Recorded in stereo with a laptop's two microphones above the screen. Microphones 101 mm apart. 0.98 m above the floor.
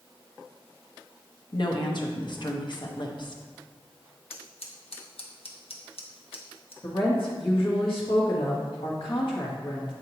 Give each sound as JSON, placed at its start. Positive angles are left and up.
{"t": 1.5, "sound": "a woman speaking", "side_deg": 55, "distance_m": 0.9}
{"t": 4.3, "sound": "scissors", "side_deg": 85, "distance_m": 1.0}
{"t": 6.8, "sound": "a woman speaking", "side_deg": 65, "distance_m": 1.6}